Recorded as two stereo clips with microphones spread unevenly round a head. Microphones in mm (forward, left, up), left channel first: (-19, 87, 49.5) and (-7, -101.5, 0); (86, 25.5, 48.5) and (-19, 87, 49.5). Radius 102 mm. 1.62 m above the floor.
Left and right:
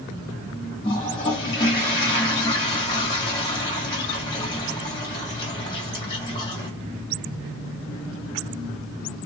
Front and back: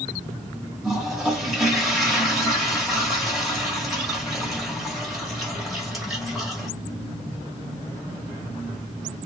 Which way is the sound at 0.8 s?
65° left.